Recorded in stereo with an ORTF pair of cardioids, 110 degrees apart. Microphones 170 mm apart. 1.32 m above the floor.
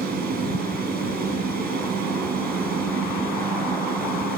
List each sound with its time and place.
0.0 s a fan: 65° right, 7.5 m